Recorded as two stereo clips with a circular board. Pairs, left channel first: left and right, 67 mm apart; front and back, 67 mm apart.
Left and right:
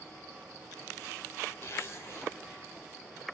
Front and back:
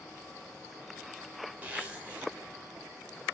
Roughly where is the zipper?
Behind left.